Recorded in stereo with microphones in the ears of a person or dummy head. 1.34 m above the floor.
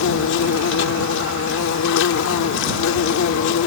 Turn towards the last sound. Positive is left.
turn(degrees=75)  # may be behind; listen again after turning